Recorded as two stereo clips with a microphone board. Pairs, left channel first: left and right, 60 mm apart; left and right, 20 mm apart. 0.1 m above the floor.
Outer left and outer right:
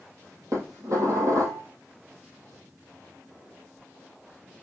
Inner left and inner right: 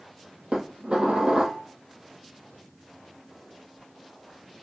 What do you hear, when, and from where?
0.5 s dishes clattering: 60° right (ahead or behind), 2.0 m